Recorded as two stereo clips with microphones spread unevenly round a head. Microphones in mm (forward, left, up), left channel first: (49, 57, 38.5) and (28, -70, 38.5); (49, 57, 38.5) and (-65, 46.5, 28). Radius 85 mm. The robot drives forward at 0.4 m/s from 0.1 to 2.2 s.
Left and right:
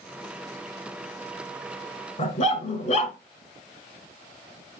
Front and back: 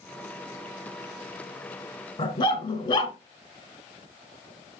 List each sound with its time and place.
2.2 s a dog barking: 55° left, 1.8 m